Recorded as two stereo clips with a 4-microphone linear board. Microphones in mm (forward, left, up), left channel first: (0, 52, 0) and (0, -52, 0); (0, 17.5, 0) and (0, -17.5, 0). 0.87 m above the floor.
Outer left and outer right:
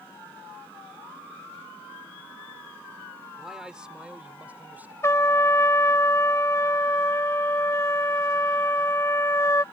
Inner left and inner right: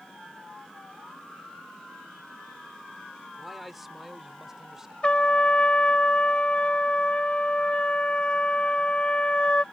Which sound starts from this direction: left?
A trumpet, at 5.0 s.